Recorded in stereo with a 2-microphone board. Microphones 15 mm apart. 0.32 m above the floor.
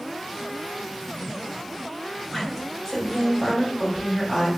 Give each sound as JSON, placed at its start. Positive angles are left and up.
{"t": 2.3, "sound": "a woman speaking", "side_deg": 30, "distance_m": 1.4}